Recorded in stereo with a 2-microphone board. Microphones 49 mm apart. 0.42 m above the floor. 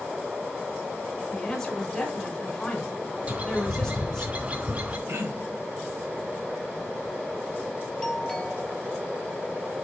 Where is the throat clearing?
60° right (ahead or behind), 2.5 m.